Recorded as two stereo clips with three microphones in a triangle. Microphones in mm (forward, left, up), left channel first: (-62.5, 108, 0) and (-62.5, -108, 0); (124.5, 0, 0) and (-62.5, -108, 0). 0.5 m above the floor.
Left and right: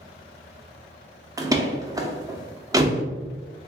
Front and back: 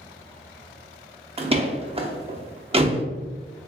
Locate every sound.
1.4 s a door slam: 145° right, 0.5 m